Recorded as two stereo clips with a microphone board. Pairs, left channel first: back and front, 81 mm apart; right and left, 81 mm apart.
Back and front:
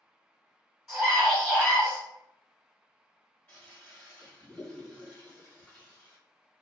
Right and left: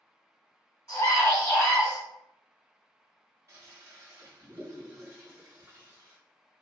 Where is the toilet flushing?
120° left, 1.3 m.